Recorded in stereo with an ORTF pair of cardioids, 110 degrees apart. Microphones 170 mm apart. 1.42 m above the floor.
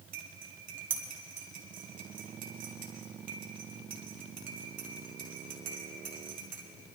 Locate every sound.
0.1 s cutlery clinking: 55° right, 2 m